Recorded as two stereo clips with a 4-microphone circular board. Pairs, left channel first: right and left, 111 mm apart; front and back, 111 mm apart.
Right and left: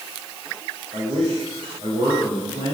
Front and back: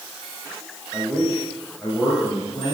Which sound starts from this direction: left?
A man speaking, at 0.9 s.